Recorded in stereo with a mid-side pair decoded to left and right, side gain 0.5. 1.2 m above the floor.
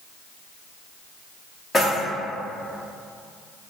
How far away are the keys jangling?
About 1.3 m.